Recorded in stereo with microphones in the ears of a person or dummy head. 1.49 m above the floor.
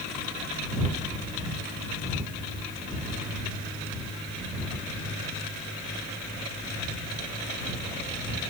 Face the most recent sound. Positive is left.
No sound to turn to.